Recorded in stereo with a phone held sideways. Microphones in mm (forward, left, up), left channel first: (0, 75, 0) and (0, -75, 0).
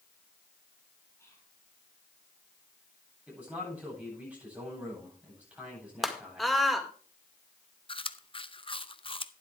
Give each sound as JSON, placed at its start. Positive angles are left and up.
{"t": 1.2, "sound": "whispering", "side_deg": 20, "distance_m": 5.0}
{"t": 3.3, "sound": "a man speaking", "side_deg": -10, "distance_m": 9.0}
{"t": 6.0, "sound": "a scream", "side_deg": 0, "distance_m": 1.9}
{"t": 7.9, "sound": "chewing", "side_deg": 40, "distance_m": 0.6}